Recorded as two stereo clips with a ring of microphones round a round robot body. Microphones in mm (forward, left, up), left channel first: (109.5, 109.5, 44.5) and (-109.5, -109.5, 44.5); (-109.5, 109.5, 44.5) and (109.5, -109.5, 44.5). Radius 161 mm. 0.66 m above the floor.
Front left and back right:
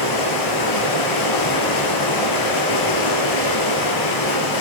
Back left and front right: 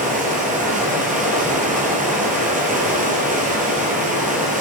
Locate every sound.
0.0 s running water: 20° left, 4 m